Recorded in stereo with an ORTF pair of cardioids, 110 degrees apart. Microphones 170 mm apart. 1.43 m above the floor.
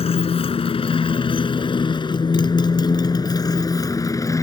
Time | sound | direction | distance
0.0 | a motorcycle | 35° left | ?